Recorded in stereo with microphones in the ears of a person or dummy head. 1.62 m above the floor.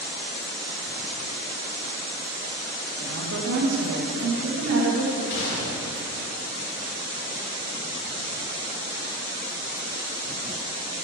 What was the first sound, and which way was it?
A woman speaking, 55° right (ahead or behind).